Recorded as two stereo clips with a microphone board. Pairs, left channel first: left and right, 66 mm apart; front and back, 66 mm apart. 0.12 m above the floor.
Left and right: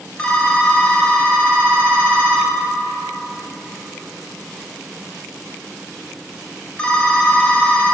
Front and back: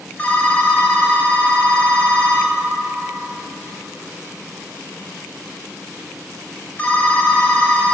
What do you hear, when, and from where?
0.2 s a phone ringing: 30° left, 0.7 m